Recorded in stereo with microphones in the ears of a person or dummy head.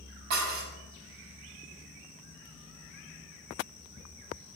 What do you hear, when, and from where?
0.3 s dishes clattering: 55° right (ahead or behind), 5.5 m